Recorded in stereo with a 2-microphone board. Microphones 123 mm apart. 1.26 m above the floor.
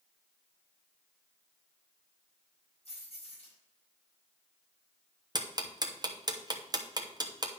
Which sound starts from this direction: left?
Keys jangling, at 2.9 s.